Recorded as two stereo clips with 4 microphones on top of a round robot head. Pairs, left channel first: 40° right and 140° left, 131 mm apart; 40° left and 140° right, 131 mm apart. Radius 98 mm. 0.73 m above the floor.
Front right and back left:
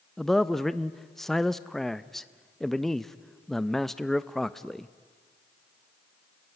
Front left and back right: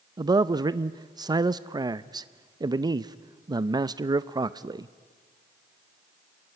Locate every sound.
0.2 s a man speaking: 130° right, 0.6 m